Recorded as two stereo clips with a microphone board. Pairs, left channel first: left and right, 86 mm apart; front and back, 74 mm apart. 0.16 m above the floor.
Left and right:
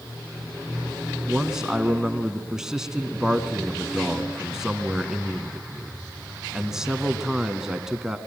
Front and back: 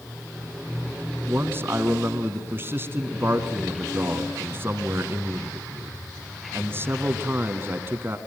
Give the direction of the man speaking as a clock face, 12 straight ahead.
6 o'clock.